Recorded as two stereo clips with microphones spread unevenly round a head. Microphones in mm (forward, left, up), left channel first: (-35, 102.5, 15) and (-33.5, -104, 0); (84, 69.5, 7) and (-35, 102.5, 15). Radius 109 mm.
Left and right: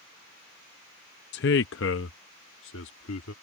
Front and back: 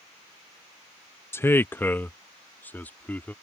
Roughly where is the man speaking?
Ahead left.